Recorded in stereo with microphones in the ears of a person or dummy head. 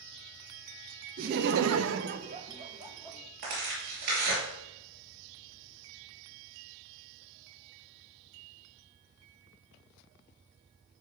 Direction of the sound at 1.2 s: 50° right (ahead or behind).